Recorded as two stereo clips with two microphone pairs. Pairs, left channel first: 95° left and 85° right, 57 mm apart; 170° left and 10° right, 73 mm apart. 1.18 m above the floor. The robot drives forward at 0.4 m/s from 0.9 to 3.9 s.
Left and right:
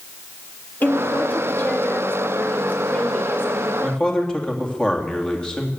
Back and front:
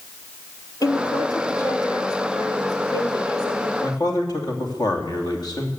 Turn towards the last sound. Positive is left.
turn(degrees=165)